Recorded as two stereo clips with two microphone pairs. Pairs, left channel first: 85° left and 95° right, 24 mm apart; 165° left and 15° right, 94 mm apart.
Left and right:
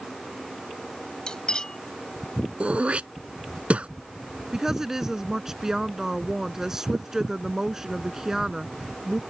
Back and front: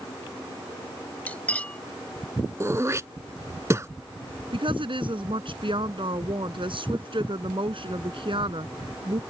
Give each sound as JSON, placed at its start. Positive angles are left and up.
{"t": 1.3, "sound": "cutlery clinking", "azimuth_deg": 105}
{"t": 2.6, "sound": "throat clearing", "azimuth_deg": -70}
{"t": 4.5, "sound": "a woman speaking", "azimuth_deg": -25}